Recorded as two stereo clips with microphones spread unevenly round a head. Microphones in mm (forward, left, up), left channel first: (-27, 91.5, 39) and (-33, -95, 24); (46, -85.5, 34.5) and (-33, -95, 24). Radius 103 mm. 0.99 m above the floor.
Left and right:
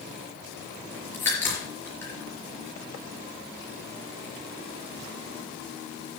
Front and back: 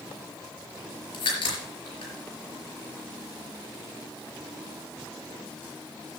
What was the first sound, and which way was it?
A crack, 10° left.